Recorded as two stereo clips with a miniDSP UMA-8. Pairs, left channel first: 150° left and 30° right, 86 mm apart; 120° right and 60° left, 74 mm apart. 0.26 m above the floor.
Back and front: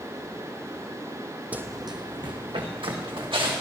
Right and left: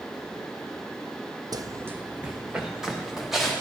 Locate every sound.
1.5 s running footsteps: 40° left, 0.6 m; by 3.6 s 30° right, 3 m